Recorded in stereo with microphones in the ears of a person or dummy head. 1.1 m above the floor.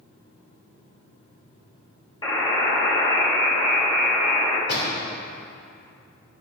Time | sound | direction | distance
2.2 | a buzzer | 20° left (ahead or behind) | 1.7 m
4.7 | a door slam | 60° left (ahead or behind) | 2.5 m